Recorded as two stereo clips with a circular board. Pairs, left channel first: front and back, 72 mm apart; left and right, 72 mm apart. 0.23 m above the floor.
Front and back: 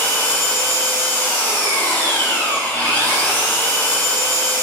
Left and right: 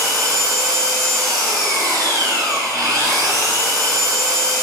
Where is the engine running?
65° right, 1.9 m.